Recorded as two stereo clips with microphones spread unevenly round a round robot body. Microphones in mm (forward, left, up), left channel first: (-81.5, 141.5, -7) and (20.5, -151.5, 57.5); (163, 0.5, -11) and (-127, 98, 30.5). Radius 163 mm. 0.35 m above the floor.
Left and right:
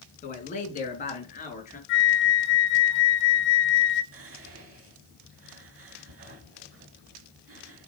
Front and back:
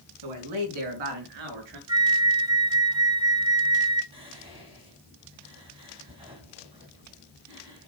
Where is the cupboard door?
No cupboard door in this recording.